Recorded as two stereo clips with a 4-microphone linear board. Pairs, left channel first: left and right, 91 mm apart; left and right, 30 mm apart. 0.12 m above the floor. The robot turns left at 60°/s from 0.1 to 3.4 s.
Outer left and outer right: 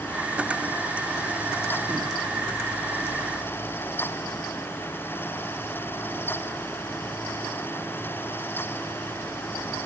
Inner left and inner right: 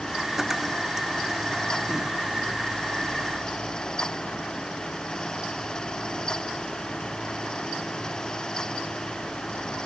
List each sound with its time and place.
Only background noise.